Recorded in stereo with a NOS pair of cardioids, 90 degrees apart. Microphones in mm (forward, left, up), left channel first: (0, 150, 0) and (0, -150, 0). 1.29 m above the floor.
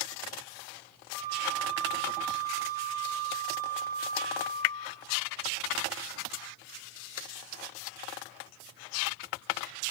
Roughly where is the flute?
Ahead left.